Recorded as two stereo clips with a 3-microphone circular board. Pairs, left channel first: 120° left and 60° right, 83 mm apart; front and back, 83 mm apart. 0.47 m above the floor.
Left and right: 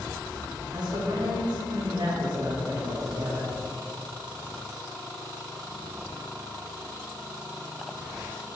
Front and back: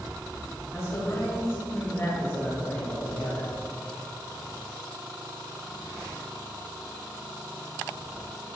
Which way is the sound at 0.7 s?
50° right.